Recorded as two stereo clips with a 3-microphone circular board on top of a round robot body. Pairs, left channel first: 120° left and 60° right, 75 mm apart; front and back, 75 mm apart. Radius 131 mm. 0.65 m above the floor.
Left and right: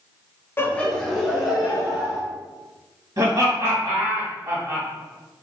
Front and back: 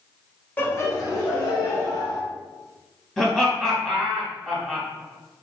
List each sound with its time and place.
0.6 s laughter: 65° left, 0.9 m; by 2.2 s 15° left, 2.5 m
3.2 s laughter: 85° right, 1.6 m